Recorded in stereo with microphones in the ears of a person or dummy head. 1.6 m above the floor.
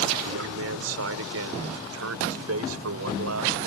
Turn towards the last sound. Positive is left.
turn(degrees=-85)